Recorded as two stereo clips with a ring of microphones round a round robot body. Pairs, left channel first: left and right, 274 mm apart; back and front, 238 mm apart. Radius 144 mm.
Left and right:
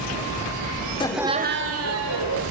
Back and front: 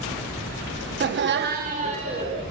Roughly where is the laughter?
Ahead left.